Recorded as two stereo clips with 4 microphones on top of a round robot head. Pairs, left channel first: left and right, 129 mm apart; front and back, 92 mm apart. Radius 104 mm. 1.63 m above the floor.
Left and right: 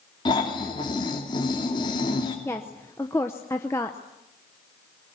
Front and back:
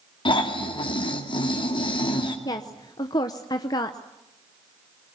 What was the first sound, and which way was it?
Snoring, 25° left.